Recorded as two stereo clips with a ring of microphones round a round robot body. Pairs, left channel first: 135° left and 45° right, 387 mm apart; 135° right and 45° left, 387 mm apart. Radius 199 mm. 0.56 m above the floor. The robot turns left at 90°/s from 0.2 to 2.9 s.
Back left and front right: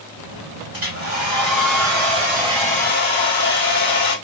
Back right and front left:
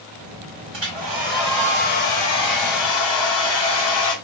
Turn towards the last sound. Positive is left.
turn(degrees=-160)